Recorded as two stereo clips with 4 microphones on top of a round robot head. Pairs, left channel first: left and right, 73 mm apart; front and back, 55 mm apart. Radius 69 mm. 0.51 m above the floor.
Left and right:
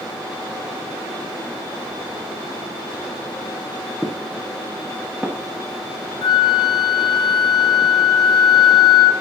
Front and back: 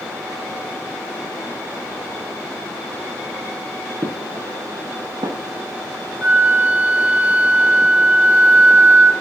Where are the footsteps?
175° right, 6 m.